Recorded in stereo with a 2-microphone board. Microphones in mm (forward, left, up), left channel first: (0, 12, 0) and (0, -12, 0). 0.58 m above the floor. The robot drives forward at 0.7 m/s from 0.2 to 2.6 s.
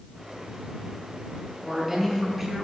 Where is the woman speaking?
5° right (ahead or behind), 5 m.